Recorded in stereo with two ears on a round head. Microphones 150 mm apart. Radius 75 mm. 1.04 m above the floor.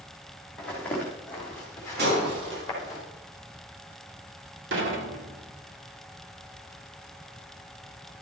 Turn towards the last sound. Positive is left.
turn(degrees=-80)